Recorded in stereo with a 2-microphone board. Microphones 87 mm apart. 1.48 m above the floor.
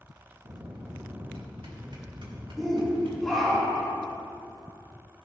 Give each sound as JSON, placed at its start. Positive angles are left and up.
{"t": 0.4, "sound": "a bell", "side_deg": -70, "distance_m": 2.5}
{"t": 2.6, "sound": "a shout", "side_deg": 0, "distance_m": 3.5}